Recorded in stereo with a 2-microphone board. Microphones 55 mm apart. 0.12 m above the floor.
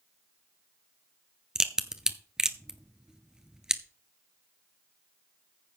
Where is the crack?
15° right (ahead or behind), 0.9 m.